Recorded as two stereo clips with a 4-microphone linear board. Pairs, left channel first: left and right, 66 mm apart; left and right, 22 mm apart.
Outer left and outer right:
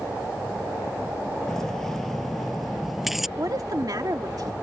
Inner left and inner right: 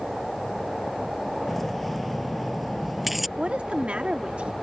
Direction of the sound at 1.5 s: 5° left (ahead or behind).